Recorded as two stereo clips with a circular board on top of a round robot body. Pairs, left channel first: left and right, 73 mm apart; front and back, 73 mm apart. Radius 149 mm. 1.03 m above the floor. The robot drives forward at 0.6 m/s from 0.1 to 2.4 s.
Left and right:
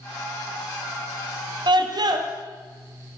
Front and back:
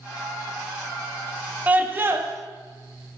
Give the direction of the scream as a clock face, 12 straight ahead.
4 o'clock.